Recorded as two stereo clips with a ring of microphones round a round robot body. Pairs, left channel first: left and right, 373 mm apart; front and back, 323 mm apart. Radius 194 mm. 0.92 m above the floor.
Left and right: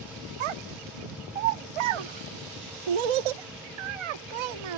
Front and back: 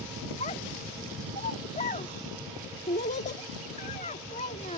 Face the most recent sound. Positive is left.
turn(degrees=-75)